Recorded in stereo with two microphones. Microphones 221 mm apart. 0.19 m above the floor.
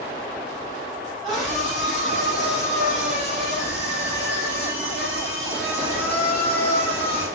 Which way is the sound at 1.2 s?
Centre (ahead or behind).